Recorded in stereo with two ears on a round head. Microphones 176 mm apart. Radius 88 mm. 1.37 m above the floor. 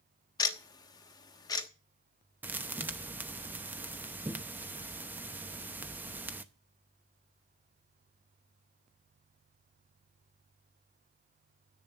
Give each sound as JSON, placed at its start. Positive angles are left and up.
{"t": 0.4, "sound": "ticking", "side_deg": 20, "distance_m": 1.1}
{"t": 2.4, "sound": "a thud", "side_deg": -10, "distance_m": 0.7}